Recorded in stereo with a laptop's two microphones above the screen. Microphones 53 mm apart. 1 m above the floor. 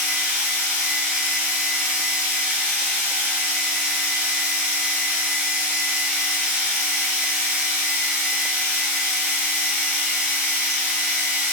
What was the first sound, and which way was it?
A machine running, 25° right (ahead or behind).